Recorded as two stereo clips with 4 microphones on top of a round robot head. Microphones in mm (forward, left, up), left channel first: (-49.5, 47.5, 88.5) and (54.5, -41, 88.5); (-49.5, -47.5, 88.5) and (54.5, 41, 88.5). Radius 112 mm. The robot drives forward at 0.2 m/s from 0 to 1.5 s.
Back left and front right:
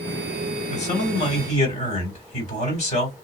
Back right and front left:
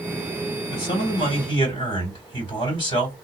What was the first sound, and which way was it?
A man speaking, 170° left.